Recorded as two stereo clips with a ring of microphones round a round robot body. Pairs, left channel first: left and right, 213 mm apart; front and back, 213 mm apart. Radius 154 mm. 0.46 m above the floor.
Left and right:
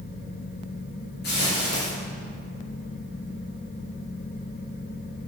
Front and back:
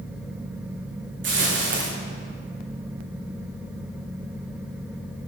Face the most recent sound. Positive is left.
turn(degrees=150)